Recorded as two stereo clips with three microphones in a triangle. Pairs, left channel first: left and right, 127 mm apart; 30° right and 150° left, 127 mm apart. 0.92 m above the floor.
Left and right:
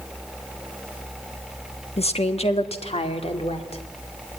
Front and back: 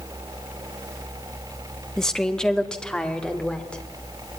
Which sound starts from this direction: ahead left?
A woman speaking, at 2.0 s.